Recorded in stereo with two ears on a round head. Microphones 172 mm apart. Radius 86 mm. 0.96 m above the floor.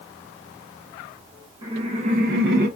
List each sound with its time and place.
1.6 s laughter: 30° right (ahead or behind), 1.4 m; by 2.7 s 50° right (ahead or behind), 0.7 m